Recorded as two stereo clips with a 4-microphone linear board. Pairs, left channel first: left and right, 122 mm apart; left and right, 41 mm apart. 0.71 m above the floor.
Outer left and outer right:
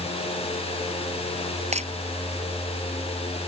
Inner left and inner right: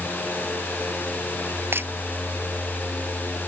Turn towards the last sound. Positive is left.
turn(degrees=-65)  # may be behind; listen again after turning